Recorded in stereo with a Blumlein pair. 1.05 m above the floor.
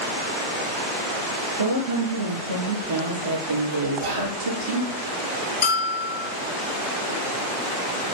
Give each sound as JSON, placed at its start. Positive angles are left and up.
{"t": 1.6, "sound": "a woman speaking", "azimuth_deg": -65, "distance_m": 1.8}
{"t": 4.0, "sound": "whispering", "azimuth_deg": -65, "distance_m": 1.2}
{"t": 5.6, "sound": "a bell", "azimuth_deg": 60, "distance_m": 0.9}